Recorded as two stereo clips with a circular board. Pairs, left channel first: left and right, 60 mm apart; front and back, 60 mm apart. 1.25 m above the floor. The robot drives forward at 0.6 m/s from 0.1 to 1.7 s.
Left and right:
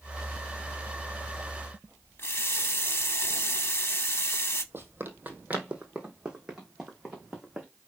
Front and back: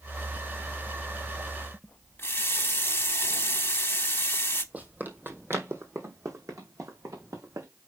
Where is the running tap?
50° left, 0.8 m.